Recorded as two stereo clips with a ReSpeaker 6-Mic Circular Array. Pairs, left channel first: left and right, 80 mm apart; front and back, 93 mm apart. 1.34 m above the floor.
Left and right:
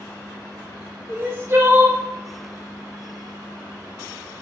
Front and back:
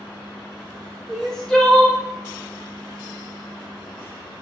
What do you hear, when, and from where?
1.1 s crying: 80° right, 0.7 m